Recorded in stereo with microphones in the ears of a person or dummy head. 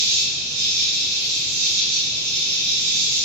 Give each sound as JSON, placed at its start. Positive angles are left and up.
{"t": 0.0, "sound": "an insect", "side_deg": -85, "distance_m": 1.7}